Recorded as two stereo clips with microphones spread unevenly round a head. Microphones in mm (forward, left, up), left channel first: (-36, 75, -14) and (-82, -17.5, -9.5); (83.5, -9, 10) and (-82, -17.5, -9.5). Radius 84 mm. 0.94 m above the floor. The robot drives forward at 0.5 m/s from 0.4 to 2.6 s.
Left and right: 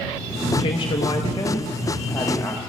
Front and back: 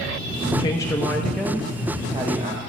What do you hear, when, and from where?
0.6 s a woman speaking: 70° left, 1.0 m; by 2.6 s 135° left, 1.2 m